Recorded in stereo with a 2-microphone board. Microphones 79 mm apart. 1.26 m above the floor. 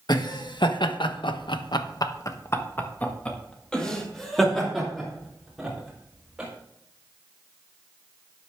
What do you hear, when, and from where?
0.1 s laughter: 60° left (ahead or behind), 1.5 m; by 6.5 s 5° right (ahead or behind), 4 m